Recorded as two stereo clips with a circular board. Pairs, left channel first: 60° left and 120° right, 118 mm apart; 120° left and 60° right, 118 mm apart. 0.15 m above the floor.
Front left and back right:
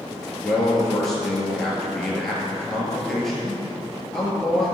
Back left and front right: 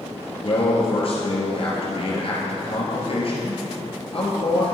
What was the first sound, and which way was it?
A man speaking, 145° left.